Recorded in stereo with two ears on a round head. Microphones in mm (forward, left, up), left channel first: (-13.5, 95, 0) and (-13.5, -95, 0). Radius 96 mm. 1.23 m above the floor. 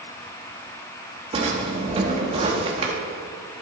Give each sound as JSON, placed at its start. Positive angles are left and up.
{"t": 1.3, "sound": "a drawer", "side_deg": -25, "distance_m": 1.3}